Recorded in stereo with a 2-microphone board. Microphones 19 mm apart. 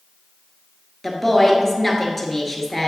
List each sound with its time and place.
1.0 s a woman speaking: 10° left (ahead or behind), 1.6 m